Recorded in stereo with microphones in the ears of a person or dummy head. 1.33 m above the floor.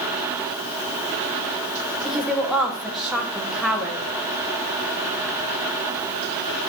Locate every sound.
2.0 s a woman speaking: centre (ahead or behind), 1.2 m